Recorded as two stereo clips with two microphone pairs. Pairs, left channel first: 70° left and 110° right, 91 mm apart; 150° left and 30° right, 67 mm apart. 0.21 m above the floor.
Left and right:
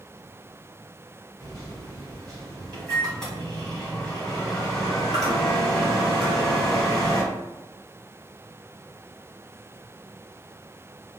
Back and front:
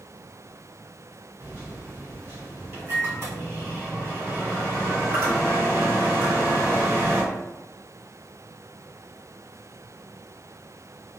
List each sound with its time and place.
1.4 s a microwave: 5° right, 1.8 m